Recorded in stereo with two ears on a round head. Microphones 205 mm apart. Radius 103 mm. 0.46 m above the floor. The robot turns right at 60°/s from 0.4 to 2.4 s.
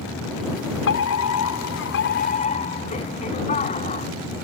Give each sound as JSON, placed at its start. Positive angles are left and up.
{"t": 0.9, "sound": "a fire alarm", "azimuth_deg": 55}